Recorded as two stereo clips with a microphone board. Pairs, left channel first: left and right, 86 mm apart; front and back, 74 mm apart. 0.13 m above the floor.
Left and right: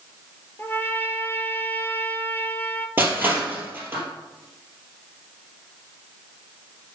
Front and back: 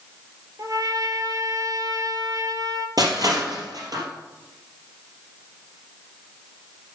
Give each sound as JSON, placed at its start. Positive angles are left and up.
{"t": 0.6, "sound": "a trumpet", "azimuth_deg": 150, "distance_m": 0.9}
{"t": 3.0, "sound": "crushing", "azimuth_deg": -155, "distance_m": 3.0}